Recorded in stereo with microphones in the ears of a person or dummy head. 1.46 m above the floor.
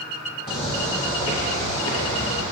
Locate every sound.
0.5 s footsteps: 30° left (ahead or behind), 1.8 m; by 2.4 s 40° left (ahead or behind), 1.9 m